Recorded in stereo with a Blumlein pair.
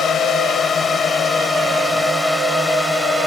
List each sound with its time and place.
0.0 s a drone: 20° left; by 3.3 s 5° right